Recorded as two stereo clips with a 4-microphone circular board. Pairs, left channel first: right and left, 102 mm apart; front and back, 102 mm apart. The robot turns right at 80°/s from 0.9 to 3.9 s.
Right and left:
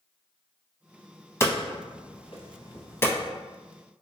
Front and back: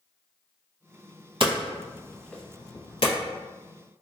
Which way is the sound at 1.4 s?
155° right.